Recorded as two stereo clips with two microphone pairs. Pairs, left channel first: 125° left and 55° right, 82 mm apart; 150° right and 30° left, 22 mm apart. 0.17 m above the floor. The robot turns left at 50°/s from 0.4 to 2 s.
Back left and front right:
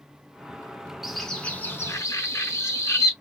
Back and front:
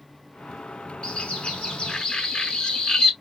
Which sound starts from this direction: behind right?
A bird, at 1.0 s.